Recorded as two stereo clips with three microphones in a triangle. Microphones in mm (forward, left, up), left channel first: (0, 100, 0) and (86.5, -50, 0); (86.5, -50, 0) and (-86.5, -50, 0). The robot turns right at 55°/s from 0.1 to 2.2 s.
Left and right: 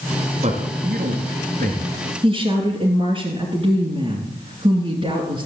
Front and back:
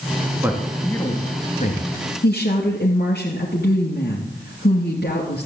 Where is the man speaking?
105° right, 2.5 m; by 1.9 s 25° right, 2.5 m.